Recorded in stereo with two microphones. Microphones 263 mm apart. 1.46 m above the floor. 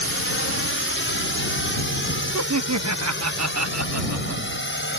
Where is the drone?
55° left (ahead or behind); by 5.0 s 45° left (ahead or behind).